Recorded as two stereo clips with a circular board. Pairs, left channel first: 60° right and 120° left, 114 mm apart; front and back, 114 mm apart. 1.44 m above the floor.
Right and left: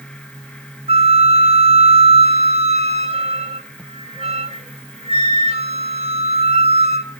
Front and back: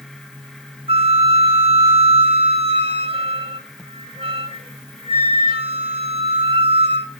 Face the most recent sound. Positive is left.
turn(degrees=140)